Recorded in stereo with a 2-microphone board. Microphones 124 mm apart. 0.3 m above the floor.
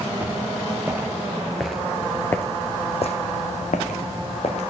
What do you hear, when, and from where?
0.2 s footsteps: 15° right (ahead or behind), 3 m; by 4.6 s 60° left (ahead or behind), 2.0 m